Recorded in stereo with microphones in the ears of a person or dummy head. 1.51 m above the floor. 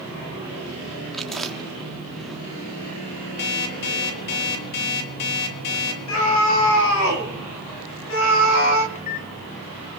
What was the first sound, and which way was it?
Chewing, 5° right (ahead or behind).